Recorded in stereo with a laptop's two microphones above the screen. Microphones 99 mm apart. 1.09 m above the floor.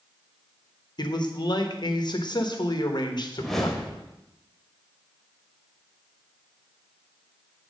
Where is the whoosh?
5° left (ahead or behind), 1.4 m.